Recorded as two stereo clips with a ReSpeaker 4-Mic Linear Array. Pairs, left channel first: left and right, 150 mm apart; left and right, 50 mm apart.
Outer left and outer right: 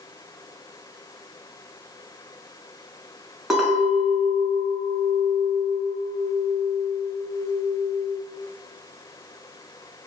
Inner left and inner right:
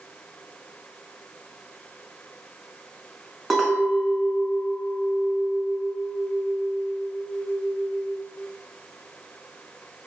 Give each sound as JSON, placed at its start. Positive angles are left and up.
{"t": 3.5, "sound": "a clink", "side_deg": -5, "distance_m": 0.7}